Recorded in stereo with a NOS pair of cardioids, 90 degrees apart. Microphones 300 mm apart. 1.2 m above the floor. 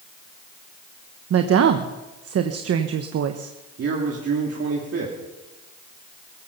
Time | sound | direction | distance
1.3 | a woman speaking | 55° right | 1.2 m
3.8 | a man speaking | 50° right | 3 m